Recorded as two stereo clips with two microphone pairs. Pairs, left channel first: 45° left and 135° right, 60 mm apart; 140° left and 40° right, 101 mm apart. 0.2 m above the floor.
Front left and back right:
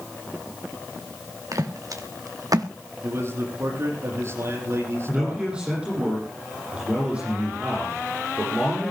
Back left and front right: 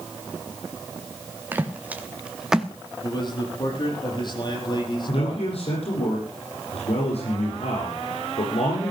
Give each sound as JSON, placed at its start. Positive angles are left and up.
{"t": 1.5, "sound": "footsteps", "azimuth_deg": -115, "distance_m": 2.5}
{"t": 3.0, "sound": "a man speaking", "azimuth_deg": 180, "distance_m": 6.5}
{"t": 5.1, "sound": "a man speaking", "azimuth_deg": 150, "distance_m": 8.5}